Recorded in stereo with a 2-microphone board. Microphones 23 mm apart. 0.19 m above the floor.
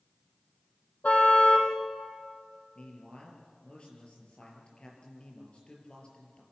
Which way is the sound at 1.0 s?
75° left (ahead or behind).